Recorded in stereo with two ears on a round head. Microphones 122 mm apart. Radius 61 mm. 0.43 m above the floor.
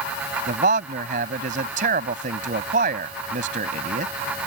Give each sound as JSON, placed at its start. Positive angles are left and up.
{"t": 0.5, "sound": "a man speaking", "side_deg": -65}